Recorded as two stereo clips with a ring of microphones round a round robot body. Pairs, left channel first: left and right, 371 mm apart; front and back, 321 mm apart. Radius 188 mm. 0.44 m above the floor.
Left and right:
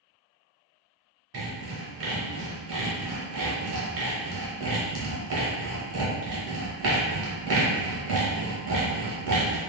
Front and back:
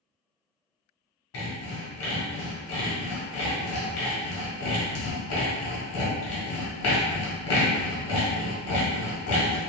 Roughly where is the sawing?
Ahead right.